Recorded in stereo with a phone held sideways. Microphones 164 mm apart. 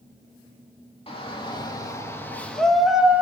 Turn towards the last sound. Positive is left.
turn(degrees=-10)  # may be behind; listen again after turning